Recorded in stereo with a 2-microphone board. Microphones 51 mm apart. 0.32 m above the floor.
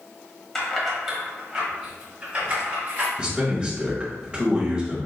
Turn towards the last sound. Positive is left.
turn(degrees=-20)  # may be behind; listen again after turning